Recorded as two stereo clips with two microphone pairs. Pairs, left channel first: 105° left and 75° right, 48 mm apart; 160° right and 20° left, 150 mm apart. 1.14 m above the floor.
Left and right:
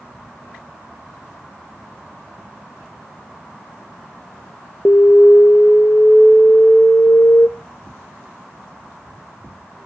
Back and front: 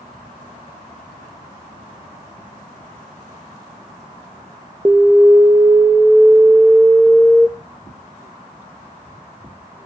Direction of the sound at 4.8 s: 90° left.